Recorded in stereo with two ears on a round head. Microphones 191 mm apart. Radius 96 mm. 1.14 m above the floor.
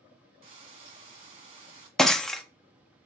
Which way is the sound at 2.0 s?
Centre (ahead or behind).